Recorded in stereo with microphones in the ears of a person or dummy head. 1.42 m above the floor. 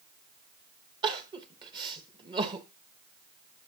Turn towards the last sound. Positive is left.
turn(degrees=-25)  # may be behind; listen again after turning